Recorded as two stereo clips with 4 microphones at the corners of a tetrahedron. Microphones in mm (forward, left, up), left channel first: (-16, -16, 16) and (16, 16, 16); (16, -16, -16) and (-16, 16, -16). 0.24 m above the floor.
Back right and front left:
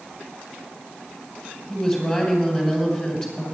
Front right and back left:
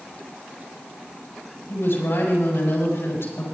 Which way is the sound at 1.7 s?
70° right.